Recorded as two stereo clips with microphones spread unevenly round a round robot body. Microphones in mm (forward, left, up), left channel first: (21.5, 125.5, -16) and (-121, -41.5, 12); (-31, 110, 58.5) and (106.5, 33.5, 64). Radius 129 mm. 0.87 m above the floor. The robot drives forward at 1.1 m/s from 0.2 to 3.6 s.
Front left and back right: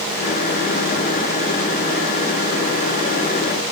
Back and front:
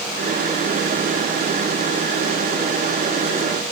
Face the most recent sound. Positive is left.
No sound to turn to.